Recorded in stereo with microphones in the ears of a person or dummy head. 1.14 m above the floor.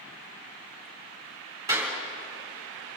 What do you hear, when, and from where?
1.7 s a clap: 20° right (ahead or behind), 3 m